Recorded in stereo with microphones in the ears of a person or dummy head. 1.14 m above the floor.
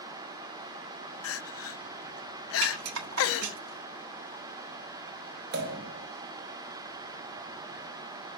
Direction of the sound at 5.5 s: 65° right (ahead or behind).